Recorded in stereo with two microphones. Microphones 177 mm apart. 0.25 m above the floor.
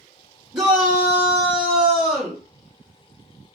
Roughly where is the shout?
Centre.